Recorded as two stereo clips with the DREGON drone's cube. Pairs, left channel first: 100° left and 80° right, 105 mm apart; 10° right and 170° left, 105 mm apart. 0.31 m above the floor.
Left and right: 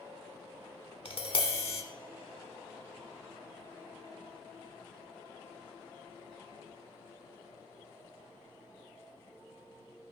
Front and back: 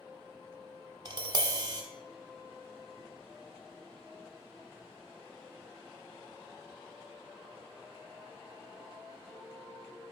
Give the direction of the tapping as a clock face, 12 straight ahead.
8 o'clock.